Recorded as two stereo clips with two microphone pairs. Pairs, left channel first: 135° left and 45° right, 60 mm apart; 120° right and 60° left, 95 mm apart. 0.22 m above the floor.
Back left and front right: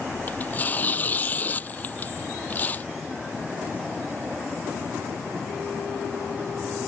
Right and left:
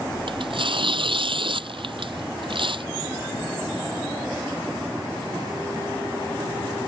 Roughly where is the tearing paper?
Left.